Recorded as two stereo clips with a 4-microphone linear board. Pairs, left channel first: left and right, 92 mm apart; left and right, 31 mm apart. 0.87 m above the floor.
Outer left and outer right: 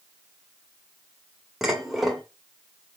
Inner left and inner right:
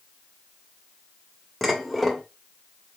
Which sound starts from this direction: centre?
Dishes clattering, at 1.6 s.